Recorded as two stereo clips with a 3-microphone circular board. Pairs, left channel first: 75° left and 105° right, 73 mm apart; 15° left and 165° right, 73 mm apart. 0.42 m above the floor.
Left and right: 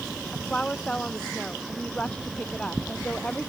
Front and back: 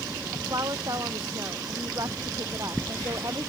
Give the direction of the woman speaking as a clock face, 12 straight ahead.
7 o'clock.